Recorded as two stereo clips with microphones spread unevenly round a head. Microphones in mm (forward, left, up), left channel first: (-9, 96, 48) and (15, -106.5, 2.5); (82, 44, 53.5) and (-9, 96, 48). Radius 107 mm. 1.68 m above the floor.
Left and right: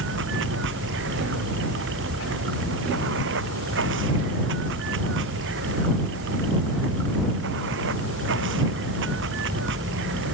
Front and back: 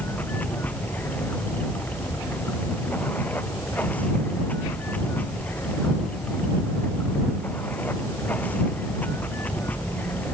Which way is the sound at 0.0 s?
110° right.